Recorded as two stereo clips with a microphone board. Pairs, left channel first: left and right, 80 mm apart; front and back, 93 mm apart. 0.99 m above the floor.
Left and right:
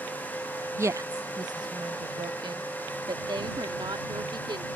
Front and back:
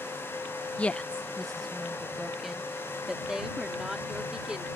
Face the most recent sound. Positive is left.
turn(degrees=-100)